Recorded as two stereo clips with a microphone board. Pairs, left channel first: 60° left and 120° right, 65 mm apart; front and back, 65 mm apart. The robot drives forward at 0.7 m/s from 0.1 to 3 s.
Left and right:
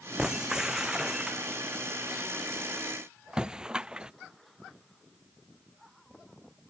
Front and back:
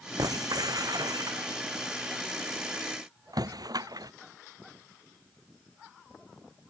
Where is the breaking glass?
160° left; by 4.1 s 165° left.